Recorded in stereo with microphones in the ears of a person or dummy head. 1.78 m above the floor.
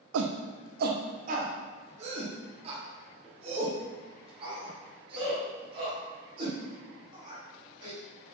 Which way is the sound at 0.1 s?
80° right.